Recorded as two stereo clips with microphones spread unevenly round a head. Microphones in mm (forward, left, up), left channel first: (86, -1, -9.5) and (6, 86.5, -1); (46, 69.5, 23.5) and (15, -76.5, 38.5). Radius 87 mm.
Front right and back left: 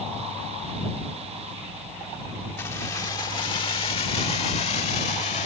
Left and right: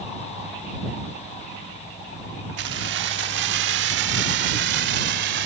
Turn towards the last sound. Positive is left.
turn(degrees=-100)